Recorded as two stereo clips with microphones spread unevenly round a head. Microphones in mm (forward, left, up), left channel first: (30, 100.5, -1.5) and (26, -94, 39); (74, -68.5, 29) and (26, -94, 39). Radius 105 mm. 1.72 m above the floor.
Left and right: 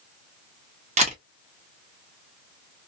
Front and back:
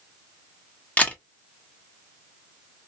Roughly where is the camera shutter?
Ahead right.